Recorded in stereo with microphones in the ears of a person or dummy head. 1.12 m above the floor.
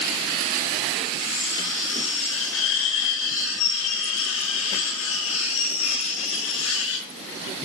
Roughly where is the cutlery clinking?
Left.